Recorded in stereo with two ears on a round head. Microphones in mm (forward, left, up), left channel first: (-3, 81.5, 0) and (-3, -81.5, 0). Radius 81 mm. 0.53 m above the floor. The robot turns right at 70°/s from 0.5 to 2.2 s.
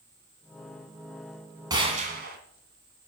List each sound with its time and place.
1.7 s a gunshot: 160° right, 2 m; by 2.4 s 125° right, 2 m